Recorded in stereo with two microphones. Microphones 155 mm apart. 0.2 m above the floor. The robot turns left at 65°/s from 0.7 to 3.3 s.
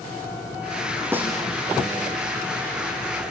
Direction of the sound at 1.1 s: 15° right (ahead or behind).